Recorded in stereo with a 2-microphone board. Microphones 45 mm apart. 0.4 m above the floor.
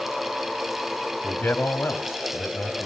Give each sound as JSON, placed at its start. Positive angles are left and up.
{"t": 1.2, "sound": "a man speaking", "side_deg": 50, "distance_m": 3.0}